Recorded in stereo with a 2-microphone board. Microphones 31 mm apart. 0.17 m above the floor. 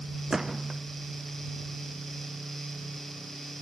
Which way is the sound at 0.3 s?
15° right (ahead or behind).